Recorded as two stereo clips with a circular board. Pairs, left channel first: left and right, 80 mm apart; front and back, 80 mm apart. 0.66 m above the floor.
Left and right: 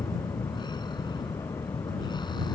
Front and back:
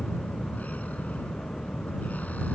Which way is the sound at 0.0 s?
70° left.